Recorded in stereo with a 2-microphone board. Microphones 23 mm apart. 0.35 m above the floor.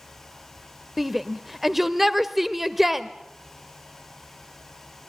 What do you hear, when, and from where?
1.0 s a shout: 10° right (ahead or behind), 0.9 m